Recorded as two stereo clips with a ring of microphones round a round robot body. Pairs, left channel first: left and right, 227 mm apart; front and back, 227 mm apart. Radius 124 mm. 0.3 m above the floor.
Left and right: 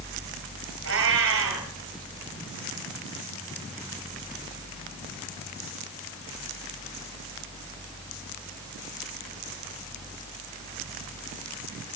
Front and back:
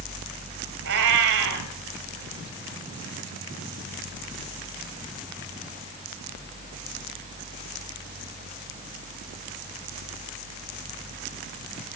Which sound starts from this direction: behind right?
A cat meowing, at 0.8 s.